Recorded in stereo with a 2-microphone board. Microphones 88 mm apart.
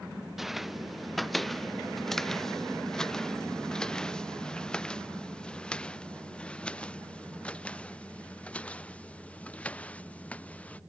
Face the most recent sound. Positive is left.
turn(degrees=15)  # may be behind; listen again after turning